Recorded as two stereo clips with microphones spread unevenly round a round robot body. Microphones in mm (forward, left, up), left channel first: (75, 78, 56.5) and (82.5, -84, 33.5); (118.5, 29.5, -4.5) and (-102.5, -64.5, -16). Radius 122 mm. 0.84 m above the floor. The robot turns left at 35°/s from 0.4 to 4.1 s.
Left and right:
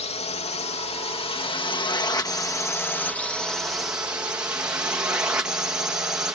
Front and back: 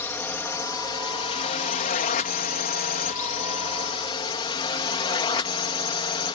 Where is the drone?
95° left; by 6.3 s 20° right.